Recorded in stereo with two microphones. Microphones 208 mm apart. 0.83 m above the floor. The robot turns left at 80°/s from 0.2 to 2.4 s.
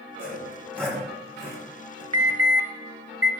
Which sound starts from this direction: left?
Sawing, at 0.2 s.